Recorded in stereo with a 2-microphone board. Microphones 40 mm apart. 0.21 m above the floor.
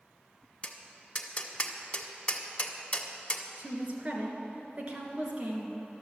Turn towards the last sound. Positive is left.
turn(degrees=-35)  # may be behind; listen again after turning